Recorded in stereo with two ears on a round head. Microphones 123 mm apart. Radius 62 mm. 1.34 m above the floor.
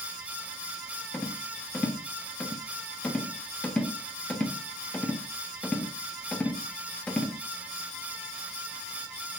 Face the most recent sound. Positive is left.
turn(degrees=10)  # may be behind; listen again after turning